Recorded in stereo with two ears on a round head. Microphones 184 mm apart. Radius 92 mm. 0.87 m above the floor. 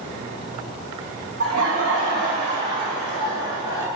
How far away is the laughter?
About 1.3 m.